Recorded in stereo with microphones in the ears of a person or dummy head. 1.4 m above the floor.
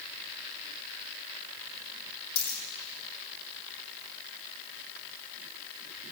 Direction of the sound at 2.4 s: 50° left (ahead or behind).